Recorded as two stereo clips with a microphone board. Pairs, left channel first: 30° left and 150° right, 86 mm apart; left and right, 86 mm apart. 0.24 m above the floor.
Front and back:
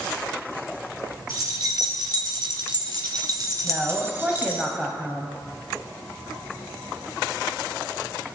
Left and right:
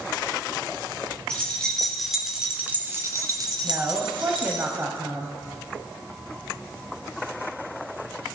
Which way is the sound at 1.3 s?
170° left.